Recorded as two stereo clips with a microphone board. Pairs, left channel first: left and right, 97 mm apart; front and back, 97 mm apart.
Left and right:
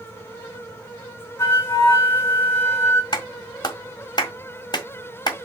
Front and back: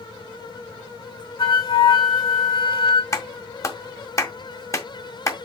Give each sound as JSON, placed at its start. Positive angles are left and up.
{"t": 1.4, "sound": "a flute", "azimuth_deg": 30, "distance_m": 4.0}
{"t": 3.1, "sound": "a clap", "azimuth_deg": 55, "distance_m": 1.7}